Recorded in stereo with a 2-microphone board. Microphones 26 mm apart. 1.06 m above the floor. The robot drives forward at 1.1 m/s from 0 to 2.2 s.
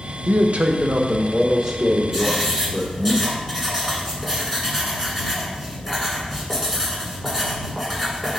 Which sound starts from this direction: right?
A man speaking, at 0.3 s.